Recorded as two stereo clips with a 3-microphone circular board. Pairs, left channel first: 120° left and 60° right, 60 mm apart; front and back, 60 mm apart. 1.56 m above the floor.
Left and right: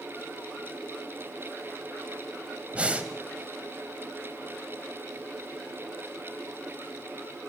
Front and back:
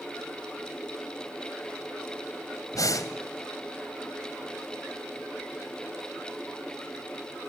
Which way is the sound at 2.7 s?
10° left.